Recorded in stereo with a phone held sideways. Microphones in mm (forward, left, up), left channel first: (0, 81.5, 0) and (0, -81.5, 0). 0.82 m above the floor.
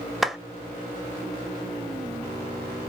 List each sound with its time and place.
0.2 s a clap: centre (ahead or behind), 1.0 m